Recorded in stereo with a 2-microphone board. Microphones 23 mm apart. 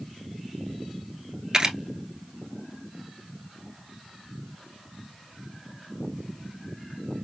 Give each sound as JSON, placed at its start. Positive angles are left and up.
{"t": 1.5, "sound": "a camera shutter", "side_deg": -30, "distance_m": 1.1}